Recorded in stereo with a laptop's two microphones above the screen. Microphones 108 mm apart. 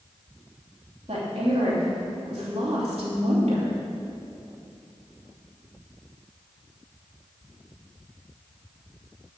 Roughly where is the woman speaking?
Right.